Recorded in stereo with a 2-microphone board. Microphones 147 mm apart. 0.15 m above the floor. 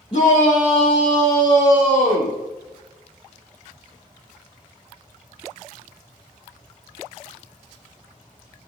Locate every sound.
0.1 s a shout: 35° left (ahead or behind), 4.5 m; by 2.4 s 20° left (ahead or behind), 5 m